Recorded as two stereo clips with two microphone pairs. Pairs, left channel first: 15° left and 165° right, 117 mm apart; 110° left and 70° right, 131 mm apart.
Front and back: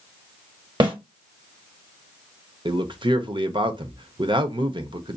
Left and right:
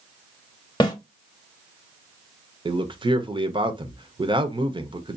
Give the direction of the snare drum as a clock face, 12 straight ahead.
7 o'clock.